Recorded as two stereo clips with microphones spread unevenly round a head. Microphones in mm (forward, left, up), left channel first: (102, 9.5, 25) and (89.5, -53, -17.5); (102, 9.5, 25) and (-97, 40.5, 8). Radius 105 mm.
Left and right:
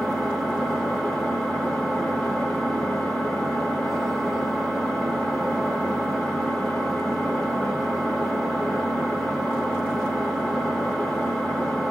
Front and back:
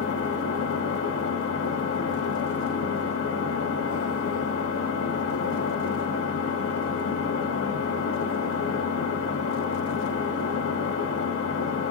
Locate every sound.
0.0 s an engine running: 25° right, 1.2 m